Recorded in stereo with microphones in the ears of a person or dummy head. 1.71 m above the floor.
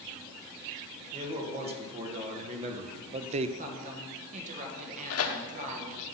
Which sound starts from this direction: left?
Tearing paper, at 5.1 s.